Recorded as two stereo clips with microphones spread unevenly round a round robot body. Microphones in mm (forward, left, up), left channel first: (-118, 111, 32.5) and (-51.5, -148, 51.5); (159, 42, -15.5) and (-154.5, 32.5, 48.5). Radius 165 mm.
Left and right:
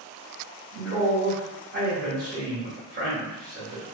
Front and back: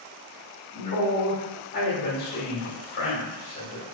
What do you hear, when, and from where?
0.7 s a man speaking: 30° right, 1.5 m